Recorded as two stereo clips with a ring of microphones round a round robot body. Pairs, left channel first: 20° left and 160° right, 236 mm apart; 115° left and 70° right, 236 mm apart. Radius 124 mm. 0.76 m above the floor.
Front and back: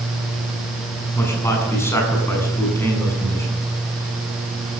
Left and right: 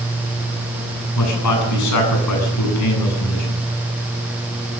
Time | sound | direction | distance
1.1 | a man speaking | 105° left | 8.5 m